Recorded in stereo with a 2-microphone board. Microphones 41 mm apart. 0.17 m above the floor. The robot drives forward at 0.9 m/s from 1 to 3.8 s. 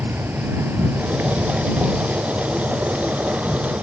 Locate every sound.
0.0 s an insect: 70° right (ahead or behind); by 3.8 s 30° right (ahead or behind)